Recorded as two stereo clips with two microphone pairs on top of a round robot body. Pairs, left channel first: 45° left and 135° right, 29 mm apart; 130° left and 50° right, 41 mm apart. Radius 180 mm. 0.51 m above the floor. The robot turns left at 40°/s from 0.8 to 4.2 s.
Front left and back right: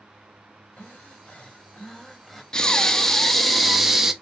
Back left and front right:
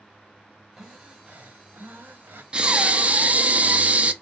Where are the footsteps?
I don't hear footsteps.